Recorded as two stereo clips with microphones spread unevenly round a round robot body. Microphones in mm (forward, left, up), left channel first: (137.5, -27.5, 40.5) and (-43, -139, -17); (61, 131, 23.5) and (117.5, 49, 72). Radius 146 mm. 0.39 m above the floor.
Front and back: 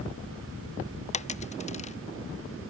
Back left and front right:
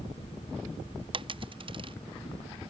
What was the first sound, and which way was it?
A dropped coin, 25° right.